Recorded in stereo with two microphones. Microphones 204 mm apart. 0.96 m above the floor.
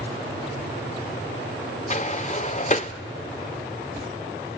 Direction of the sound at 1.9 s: 35° left (ahead or behind).